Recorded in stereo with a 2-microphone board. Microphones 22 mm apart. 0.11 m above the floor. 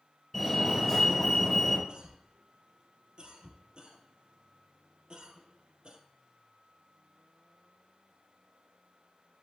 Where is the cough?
45° right (ahead or behind), 2.5 m.